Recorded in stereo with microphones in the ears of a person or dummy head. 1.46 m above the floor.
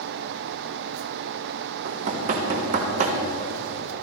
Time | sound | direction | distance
1.9 | knocking | 40° right (ahead or behind) | 1.3 m